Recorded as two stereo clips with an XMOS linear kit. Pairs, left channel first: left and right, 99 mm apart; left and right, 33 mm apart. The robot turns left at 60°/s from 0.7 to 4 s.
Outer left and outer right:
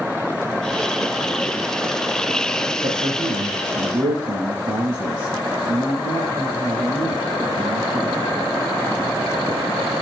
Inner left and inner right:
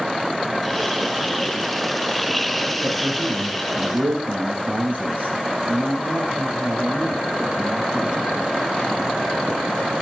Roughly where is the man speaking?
Ahead right.